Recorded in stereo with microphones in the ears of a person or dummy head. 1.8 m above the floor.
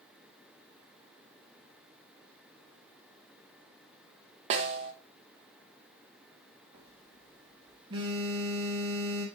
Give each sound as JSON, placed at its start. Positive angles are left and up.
{"t": 4.5, "sound": "a snare drum", "side_deg": -40, "distance_m": 1.3}
{"t": 6.7, "sound": "a phone buzzing", "side_deg": -30, "distance_m": 1.6}